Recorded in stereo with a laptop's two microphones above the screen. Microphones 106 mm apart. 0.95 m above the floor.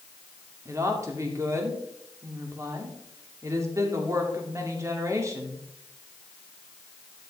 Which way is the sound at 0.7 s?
30° right (ahead or behind).